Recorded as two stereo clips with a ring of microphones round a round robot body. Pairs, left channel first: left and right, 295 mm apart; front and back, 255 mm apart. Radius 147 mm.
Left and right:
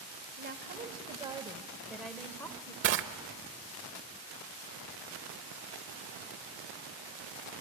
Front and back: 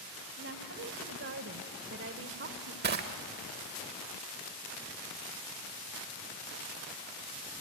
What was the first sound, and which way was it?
A woman speaking, 145° right.